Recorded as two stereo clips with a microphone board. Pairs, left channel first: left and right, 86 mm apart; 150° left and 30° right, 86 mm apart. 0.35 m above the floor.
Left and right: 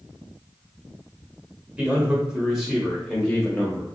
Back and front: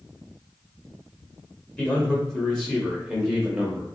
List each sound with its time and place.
1.8 s a man speaking: 150° right, 1.5 m; by 3.9 s 40° left, 1.4 m